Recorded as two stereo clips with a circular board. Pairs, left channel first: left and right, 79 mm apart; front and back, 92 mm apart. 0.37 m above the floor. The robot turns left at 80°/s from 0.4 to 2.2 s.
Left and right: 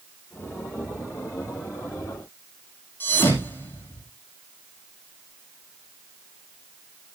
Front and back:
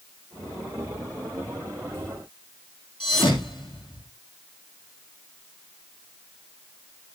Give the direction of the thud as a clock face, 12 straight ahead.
11 o'clock.